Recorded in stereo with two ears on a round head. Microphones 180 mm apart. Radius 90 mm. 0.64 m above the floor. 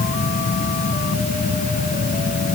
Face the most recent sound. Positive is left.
No sound to turn to.